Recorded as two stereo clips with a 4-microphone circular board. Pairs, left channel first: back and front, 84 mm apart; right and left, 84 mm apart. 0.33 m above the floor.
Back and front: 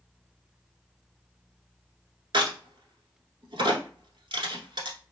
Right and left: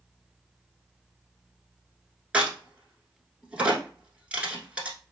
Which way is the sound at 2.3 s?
15° left.